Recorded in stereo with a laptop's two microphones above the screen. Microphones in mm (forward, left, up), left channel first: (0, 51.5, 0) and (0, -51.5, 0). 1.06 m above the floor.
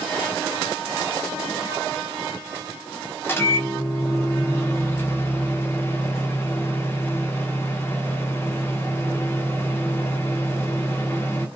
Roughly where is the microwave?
Left.